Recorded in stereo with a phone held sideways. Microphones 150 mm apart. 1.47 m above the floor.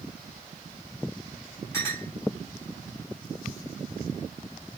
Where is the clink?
20° left (ahead or behind), 4 m.